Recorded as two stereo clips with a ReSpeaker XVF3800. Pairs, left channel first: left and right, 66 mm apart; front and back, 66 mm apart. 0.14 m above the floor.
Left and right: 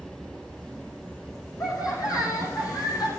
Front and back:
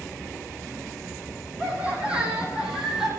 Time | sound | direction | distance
1.6 | laughter | 110° left | 6 m